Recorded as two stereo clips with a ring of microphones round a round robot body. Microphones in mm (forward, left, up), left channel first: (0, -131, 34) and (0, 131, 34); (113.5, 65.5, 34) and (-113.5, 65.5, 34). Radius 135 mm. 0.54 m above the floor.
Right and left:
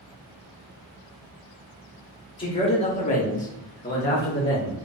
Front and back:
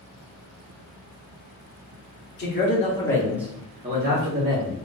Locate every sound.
2.4 s a man speaking: 25° right, 1.0 m; by 4.8 s 160° right, 1.4 m